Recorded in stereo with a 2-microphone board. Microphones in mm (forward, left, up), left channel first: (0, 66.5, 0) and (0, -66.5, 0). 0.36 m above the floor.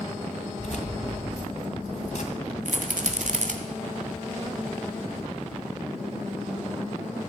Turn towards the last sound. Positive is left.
turn(degrees=-65)  # may be behind; listen again after turning